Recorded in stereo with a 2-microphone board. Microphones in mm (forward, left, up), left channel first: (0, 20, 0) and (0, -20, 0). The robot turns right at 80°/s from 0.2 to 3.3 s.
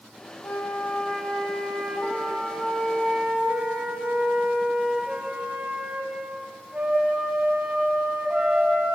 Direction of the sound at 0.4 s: 95° left.